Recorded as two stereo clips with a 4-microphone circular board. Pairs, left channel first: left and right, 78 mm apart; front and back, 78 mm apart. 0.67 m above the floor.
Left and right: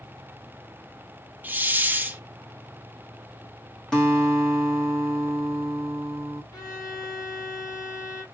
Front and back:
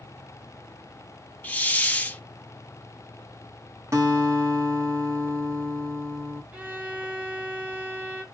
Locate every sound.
1.4 s a hiss: 50° right, 0.5 m
3.9 s a guitar: 170° left, 1.4 m
6.5 s a violin: 115° left, 1.4 m